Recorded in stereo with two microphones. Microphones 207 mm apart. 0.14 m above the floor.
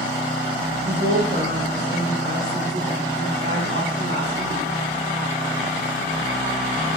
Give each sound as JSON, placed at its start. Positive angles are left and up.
{"t": 0.8, "sound": "a woman speaking", "side_deg": -75, "distance_m": 4.5}